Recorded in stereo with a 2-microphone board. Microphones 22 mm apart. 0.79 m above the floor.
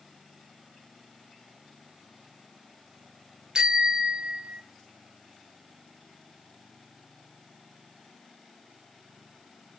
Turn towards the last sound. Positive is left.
turn(degrees=-55)  # may be behind; listen again after turning